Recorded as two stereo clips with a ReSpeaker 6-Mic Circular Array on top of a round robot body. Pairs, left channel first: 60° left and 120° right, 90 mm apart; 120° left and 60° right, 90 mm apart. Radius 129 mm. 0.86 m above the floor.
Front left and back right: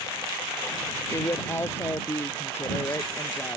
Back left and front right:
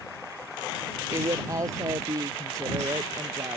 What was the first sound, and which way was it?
A woman speaking, 5° right.